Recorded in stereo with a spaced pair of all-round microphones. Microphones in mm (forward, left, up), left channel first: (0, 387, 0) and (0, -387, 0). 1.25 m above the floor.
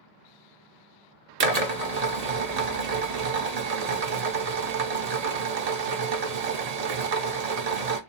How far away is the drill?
About 0.8 m.